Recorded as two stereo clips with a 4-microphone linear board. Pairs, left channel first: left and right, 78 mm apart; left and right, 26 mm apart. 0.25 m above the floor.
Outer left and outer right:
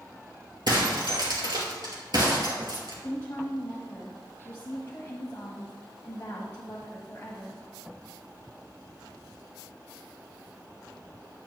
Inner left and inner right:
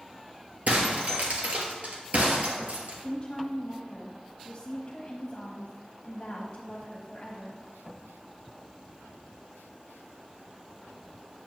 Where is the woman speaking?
30° left (ahead or behind), 1.3 m.